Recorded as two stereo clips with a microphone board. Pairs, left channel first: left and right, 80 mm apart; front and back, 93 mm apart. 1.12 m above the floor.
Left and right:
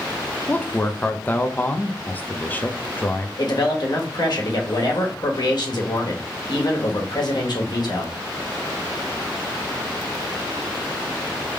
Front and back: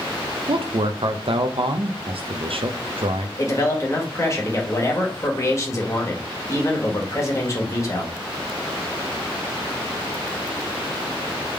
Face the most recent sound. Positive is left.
turn(degrees=60)